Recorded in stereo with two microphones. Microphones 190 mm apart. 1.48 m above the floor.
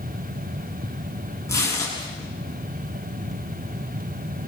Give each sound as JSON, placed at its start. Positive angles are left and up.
{"t": 1.5, "sound": "tearing paper", "side_deg": 15, "distance_m": 9.5}